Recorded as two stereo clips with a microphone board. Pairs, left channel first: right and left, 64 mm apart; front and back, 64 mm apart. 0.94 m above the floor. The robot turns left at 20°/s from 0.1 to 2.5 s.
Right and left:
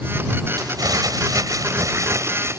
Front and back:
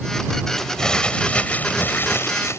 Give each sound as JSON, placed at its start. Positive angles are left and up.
{"t": 0.6, "sound": "crumpling", "azimuth_deg": 85}